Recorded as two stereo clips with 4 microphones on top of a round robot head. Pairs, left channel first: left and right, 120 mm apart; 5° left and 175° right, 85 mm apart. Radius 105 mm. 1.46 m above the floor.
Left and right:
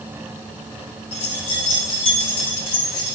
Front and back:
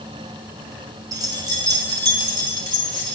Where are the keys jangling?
135° left, 1.2 m; by 3.2 s 145° left, 3 m.